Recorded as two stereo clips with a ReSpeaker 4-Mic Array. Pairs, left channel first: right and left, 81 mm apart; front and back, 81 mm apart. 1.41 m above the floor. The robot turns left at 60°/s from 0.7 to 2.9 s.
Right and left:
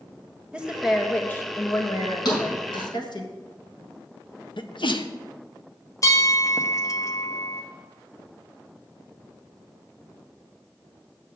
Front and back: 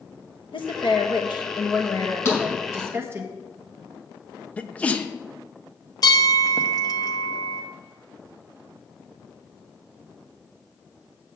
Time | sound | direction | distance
0.5 | a woman speaking | 10° left | 1.4 m
2.2 | a thud | 55° right | 5 m
4.6 | a sneeze | 70° right | 0.9 m
6.0 | a bell | 40° right | 0.9 m